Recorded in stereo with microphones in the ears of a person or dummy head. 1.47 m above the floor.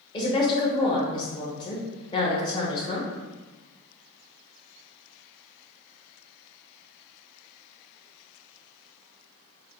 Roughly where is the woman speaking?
Left.